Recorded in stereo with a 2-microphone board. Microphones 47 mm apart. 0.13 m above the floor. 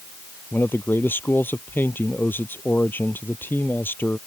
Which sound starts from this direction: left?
A man speaking, at 0.5 s.